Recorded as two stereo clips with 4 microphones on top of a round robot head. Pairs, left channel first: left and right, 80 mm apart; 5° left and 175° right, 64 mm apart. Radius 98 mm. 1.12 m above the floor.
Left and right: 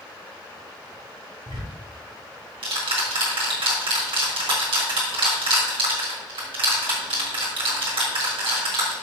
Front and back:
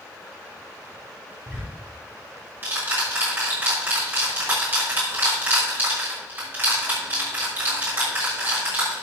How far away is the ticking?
About 3.5 m.